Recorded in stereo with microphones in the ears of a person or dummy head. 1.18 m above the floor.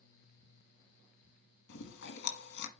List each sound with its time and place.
1.7 s chewing: 65° left (ahead or behind), 1.6 m